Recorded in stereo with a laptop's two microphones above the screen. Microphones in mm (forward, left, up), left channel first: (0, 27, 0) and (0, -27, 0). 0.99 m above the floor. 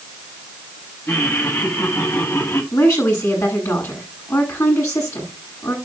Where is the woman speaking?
75° left (ahead or behind), 8.5 m.